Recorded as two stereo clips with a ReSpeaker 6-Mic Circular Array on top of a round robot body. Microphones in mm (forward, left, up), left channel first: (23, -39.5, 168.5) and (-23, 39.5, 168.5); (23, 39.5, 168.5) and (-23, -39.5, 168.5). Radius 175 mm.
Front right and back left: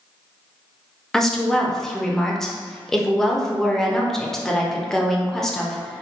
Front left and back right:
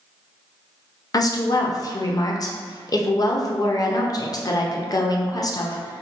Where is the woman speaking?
25° left, 0.6 m.